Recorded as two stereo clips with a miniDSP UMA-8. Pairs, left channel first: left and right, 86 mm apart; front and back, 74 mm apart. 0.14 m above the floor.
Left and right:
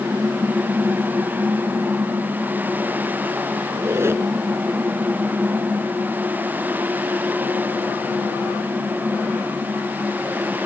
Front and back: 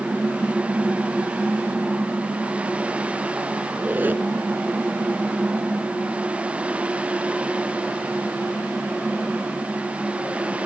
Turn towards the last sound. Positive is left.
turn(degrees=-130)